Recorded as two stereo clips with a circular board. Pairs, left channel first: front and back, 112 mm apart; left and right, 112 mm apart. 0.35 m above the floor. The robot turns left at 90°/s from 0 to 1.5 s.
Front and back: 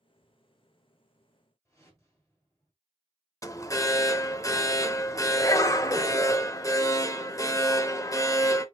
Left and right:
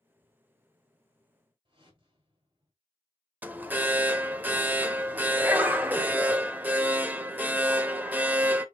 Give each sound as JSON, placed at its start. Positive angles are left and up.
{"t": 1.6, "sound": "a whoosh", "azimuth_deg": -55, "distance_m": 2.0}
{"t": 3.4, "sound": "an alarm", "azimuth_deg": -25, "distance_m": 0.6}